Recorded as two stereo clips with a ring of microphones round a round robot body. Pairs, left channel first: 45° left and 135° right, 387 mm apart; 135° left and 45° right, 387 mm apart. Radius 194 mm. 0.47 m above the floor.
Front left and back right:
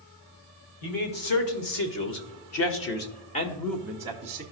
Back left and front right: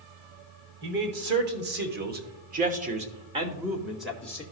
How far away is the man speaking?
About 1.8 m.